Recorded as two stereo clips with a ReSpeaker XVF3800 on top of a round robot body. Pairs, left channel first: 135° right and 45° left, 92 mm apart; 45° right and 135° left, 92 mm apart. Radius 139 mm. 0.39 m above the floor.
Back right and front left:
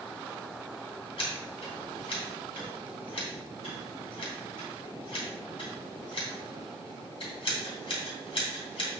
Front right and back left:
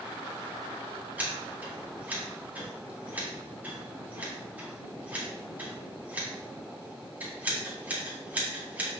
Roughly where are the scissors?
Behind right.